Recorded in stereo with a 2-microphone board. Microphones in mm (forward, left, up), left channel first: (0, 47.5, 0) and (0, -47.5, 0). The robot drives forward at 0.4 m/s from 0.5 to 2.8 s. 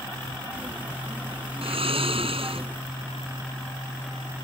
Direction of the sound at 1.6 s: 80° right.